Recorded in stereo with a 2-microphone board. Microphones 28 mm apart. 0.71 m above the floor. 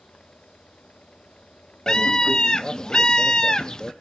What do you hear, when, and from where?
1.9 s a scream: 25° left (ahead or behind), 0.6 m